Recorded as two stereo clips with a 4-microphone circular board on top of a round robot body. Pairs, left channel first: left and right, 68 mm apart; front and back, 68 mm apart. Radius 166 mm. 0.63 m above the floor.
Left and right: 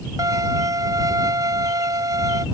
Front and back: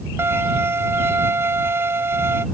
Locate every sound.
0.2 s a violin: 125° right